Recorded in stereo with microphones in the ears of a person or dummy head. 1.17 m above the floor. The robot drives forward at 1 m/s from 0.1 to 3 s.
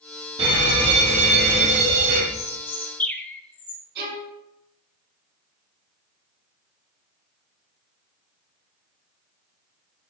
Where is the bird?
15° left (ahead or behind), 0.7 m; by 3.8 s 5° left (ahead or behind), 1.3 m.